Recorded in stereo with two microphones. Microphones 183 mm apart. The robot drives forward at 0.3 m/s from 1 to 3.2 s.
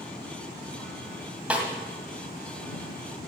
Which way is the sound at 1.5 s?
5° right (ahead or behind).